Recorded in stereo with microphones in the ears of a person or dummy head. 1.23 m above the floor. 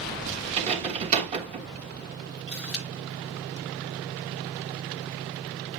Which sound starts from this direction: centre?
A camera shutter, at 2.5 s.